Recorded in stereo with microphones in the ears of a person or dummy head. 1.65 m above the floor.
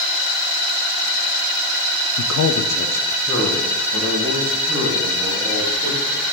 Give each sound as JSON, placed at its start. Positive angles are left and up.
{"t": 2.2, "sound": "a man speaking", "side_deg": 65, "distance_m": 0.5}